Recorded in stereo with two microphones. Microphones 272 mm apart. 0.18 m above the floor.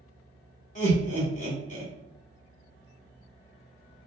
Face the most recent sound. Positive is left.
turn(degrees=30)  # may be behind; listen again after turning